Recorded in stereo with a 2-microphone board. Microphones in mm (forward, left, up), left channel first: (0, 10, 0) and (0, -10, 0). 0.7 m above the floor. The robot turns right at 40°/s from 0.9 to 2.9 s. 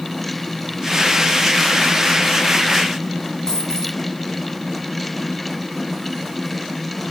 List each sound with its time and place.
3.5 s a dropped coin: 30° left (ahead or behind), 3 m